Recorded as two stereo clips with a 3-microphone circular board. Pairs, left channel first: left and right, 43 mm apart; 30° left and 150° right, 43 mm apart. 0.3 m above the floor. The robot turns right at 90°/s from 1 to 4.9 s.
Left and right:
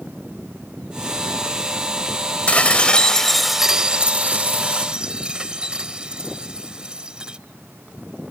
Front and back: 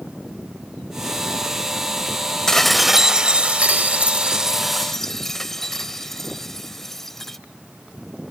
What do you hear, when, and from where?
2.5 s dishes clattering: 95° left; by 7.4 s 45° right